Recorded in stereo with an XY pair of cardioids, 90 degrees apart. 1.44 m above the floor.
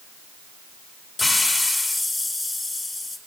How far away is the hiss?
About 4 m.